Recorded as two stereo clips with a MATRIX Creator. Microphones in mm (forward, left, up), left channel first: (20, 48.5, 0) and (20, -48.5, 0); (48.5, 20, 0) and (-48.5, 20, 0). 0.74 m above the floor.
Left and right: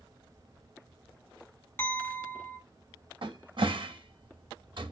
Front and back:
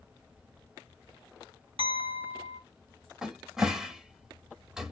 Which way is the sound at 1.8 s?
155° left.